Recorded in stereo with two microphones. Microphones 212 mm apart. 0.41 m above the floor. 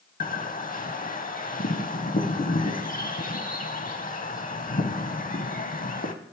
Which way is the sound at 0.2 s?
40° left (ahead or behind).